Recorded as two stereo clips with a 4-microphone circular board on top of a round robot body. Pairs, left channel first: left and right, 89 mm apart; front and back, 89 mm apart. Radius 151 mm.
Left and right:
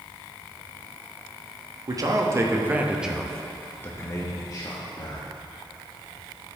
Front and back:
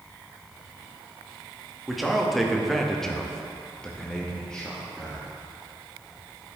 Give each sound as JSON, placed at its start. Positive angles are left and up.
{"t": 1.9, "sound": "a man speaking", "azimuth_deg": -90, "distance_m": 1.5}